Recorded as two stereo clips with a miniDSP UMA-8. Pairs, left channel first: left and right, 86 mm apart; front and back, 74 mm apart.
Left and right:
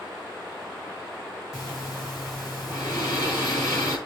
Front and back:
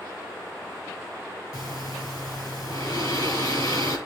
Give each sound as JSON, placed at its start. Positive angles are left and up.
{"t": 1.5, "sound": "breathing", "azimuth_deg": 45, "distance_m": 5.5}